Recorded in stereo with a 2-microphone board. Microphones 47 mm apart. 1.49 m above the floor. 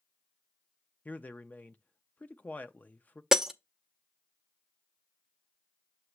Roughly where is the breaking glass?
Centre.